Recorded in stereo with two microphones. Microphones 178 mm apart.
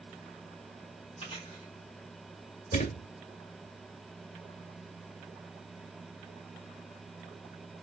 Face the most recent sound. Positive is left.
turn(degrees=45)  # may be behind; listen again after turning